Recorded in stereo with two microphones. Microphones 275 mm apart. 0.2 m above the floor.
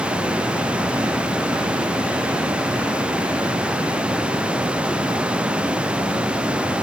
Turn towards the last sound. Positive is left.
No sound to turn to.